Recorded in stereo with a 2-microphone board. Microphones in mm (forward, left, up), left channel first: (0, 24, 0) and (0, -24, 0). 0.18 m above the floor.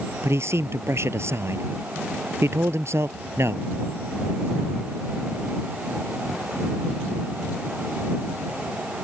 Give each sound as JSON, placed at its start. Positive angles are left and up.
{"t": 0.2, "sound": "a man speaking", "side_deg": -65}